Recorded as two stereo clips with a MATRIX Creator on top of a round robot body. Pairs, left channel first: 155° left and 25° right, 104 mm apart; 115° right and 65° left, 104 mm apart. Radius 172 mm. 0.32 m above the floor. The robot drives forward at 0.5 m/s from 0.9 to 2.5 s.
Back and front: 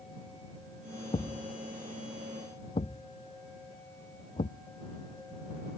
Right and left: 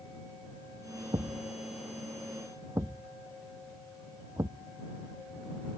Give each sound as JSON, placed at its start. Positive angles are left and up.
{"t": 1.1, "sound": "a thud", "azimuth_deg": 120}